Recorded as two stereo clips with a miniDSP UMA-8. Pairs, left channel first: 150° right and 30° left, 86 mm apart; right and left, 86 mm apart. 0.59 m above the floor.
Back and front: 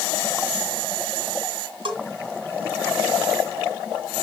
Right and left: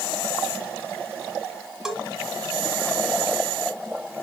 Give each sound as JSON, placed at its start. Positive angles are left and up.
{"t": 1.9, "sound": "a bell", "azimuth_deg": 5, "distance_m": 2.0}